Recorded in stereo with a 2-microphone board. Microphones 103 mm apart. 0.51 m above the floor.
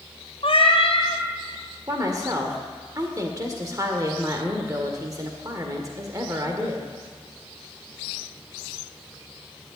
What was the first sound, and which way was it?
A cat meowing, 65° left (ahead or behind).